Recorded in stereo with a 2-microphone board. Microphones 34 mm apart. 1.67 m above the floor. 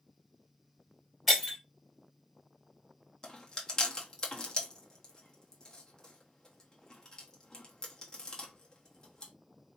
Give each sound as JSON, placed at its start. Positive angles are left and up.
{"t": 1.3, "sound": "breaking glass", "side_deg": -10, "distance_m": 3.0}
{"t": 3.2, "sound": "chewing", "side_deg": 20, "distance_m": 1.0}